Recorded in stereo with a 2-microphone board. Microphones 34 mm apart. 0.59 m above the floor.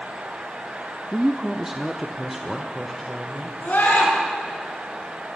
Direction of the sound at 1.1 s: 15° right (ahead or behind).